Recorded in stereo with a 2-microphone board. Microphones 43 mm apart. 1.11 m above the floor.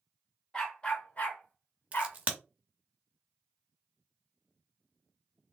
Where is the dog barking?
20° left (ahead or behind), 1.3 m; by 2.2 s 60° left (ahead or behind), 1.4 m.